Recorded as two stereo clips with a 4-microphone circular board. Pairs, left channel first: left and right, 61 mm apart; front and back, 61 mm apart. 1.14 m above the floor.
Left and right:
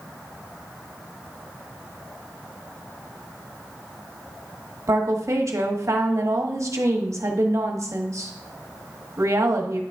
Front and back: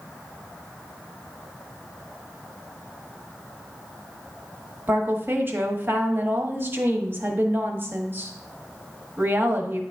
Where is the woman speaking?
125° right, 1.1 m.